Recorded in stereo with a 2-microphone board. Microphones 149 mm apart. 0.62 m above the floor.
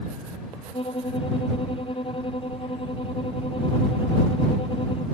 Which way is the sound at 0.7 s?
35° left (ahead or behind).